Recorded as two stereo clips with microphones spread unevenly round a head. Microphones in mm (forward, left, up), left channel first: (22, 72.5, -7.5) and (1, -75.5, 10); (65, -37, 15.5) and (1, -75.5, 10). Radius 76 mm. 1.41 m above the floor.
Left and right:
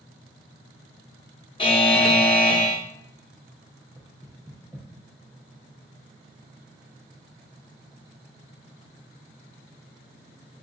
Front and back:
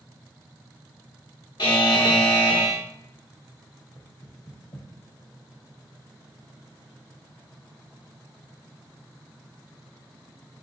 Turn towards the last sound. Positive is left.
turn(degrees=-10)